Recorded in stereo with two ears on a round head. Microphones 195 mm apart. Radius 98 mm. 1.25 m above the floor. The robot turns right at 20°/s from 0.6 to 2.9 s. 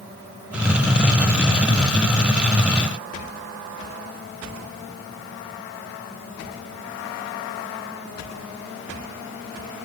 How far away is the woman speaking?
I don't hear a woman speaking.